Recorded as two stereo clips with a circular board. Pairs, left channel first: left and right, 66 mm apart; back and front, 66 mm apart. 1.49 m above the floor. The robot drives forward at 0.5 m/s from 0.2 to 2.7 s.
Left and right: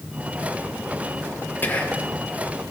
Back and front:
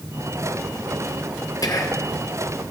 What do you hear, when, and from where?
1.6 s whispering: 155° left, 1.2 m; by 2.1 s 160° left, 1.4 m